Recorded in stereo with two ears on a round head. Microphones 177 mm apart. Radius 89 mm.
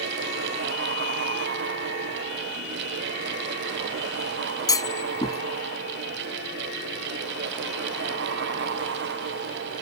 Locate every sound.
4.7 s a clunk: 20° left (ahead or behind)